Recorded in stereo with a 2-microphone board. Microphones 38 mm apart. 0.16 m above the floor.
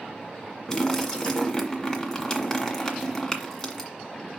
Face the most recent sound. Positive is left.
turn(degrees=15)  # may be behind; listen again after turning